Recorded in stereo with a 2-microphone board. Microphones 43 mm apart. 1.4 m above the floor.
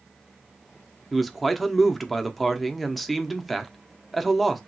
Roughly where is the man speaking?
Centre.